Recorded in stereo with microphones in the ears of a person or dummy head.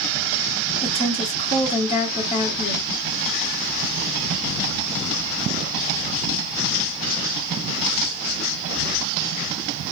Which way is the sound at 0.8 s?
35° left (ahead or behind).